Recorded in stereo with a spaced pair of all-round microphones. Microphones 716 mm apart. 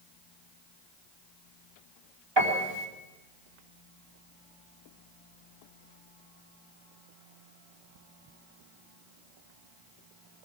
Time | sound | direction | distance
2.4 | a piano | 35° right (ahead or behind) | 4 m